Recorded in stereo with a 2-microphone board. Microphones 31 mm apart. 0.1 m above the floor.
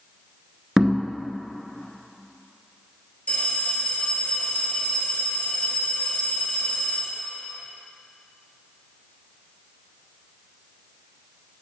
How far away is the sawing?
No sawing in this recording.